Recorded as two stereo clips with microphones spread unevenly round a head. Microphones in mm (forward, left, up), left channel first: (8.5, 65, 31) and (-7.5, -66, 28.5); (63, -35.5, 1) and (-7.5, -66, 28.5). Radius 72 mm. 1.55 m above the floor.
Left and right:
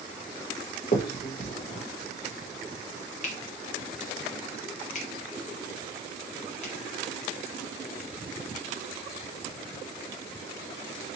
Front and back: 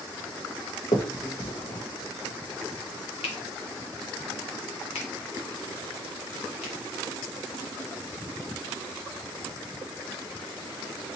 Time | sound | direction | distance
0.9 | a finger snap | 55° left | 1.0 m